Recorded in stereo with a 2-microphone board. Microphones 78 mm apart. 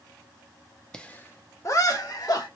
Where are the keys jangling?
I don't hear keys jangling.